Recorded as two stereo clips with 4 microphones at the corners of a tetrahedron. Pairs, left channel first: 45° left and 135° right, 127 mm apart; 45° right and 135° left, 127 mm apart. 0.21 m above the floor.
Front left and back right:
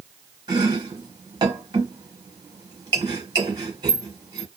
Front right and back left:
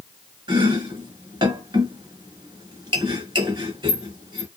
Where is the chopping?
175° left, 0.9 m.